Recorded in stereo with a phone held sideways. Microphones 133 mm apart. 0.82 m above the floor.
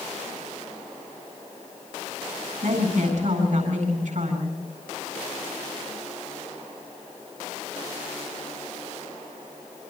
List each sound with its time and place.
2.6 s a woman speaking: 70° right (ahead or behind), 9 m